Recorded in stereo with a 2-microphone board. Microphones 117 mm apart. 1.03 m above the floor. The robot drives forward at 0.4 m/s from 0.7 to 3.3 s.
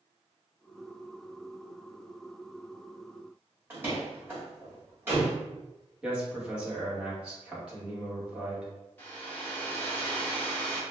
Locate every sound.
3.7 s a door slam: 20° right (ahead or behind), 1.8 m
6.0 s a man speaking: 10° right (ahead or behind), 1.4 m
9.0 s a hair dryer: 20° left (ahead or behind), 1.2 m